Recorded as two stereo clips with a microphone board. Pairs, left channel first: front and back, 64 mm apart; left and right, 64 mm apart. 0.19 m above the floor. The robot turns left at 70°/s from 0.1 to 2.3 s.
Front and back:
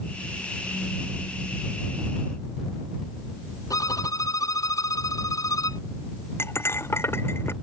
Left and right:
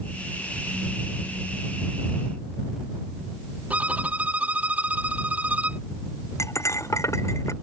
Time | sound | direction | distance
3.7 | a violin | 25° right | ?
6.4 | cutlery clinking | 50° left | ?